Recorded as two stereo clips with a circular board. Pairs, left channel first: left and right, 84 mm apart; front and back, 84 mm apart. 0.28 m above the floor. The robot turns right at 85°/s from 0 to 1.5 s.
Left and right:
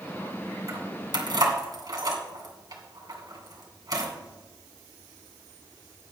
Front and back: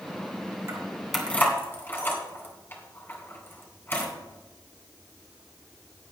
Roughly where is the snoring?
No snoring in this recording.